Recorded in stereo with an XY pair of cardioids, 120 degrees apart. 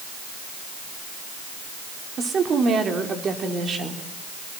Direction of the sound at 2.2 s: 40° right.